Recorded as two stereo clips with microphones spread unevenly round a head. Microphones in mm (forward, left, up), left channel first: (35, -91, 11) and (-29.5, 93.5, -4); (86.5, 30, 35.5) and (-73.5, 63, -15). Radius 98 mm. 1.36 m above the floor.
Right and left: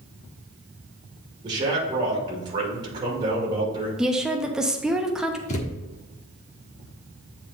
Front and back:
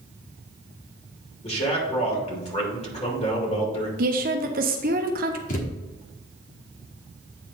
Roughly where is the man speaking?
Ahead left.